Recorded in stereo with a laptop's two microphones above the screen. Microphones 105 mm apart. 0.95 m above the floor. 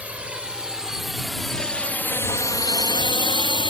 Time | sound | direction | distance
0.0 | a drone | 15° right (ahead or behind) | ?